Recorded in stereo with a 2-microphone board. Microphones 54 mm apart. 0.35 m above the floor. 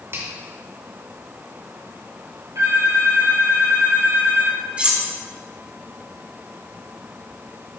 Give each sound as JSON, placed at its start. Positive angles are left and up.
{"t": 0.1, "sound": "a finger snap", "side_deg": -55, "distance_m": 3.0}
{"t": 2.5, "sound": "a phone ringing", "side_deg": -85, "distance_m": 4.5}
{"t": 4.8, "sound": "cutlery clinking", "side_deg": -20, "distance_m": 1.8}